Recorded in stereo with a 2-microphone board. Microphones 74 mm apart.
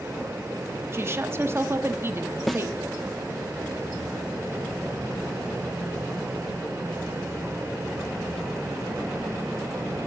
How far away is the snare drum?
About 0.5 m.